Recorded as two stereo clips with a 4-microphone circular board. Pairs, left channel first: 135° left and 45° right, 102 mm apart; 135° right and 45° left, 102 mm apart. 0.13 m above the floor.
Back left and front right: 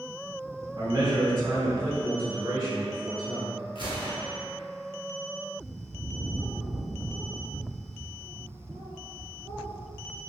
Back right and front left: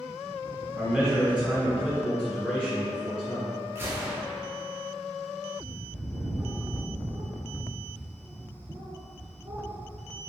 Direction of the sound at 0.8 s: 25° right.